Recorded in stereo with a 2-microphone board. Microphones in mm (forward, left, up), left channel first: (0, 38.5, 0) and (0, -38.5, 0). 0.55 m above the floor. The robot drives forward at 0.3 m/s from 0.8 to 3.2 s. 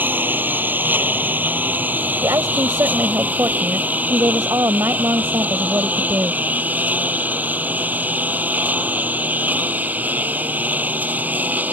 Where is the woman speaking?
45° right (ahead or behind); by 6.4 s 40° right (ahead or behind).